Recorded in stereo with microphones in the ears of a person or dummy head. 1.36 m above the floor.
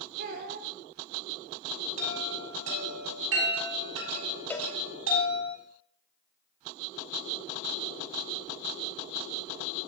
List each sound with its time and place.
0.2 s a child speaking: 60° right (ahead or behind), 0.7 m
2.0 s a chime: 80° right, 4 m
4.5 s a cowbell: 5° left (ahead or behind), 0.5 m